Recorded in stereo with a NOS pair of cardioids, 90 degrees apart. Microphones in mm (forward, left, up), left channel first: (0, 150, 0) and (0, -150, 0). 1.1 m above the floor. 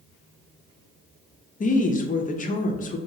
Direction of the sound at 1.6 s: 30° left.